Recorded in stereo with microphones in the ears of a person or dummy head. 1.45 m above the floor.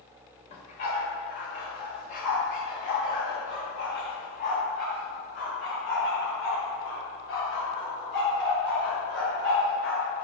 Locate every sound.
0.5 s a dog barking: 50° left (ahead or behind), 1.6 m; by 10.2 s 80° left, 6 m